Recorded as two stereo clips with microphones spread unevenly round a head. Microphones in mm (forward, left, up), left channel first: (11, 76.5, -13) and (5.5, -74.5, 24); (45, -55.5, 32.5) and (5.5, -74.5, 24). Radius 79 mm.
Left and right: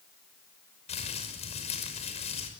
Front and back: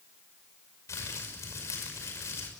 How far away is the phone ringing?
No phone ringing in this recording.